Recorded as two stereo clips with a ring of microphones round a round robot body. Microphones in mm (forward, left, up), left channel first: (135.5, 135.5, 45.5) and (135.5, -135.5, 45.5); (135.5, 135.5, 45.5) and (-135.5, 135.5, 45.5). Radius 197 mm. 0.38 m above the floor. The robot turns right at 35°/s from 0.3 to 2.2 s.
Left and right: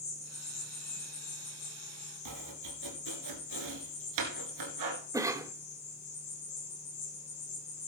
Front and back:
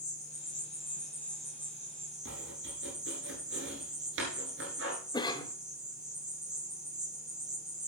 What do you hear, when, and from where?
0.0 s an insect: 50° left, 4 m; by 7.9 s 120° left, 4 m
2.2 s chopping: 120° right, 1.8 m
5.1 s a cough: 35° right, 1.1 m